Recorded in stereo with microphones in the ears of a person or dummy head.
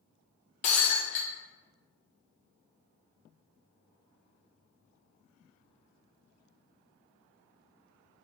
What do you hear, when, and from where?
0.6 s breaking glass: 40° left (ahead or behind), 0.8 m